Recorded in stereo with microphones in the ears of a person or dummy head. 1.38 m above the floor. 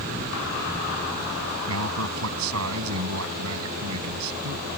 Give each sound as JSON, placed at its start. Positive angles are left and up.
{"t": 1.7, "sound": "a man speaking", "side_deg": -85}